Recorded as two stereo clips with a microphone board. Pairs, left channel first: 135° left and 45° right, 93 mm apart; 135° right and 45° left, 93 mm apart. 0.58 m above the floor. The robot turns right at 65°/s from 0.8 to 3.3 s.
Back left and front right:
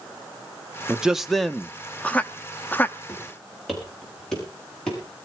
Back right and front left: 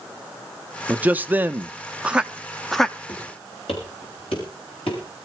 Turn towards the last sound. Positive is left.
turn(degrees=-145)